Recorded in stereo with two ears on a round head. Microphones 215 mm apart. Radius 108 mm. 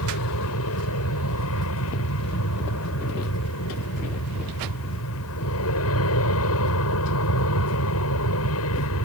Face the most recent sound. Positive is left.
turn(degrees=65)  # may be behind; listen again after turning